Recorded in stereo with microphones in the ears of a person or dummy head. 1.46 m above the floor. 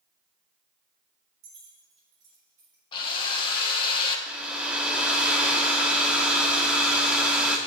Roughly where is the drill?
Left.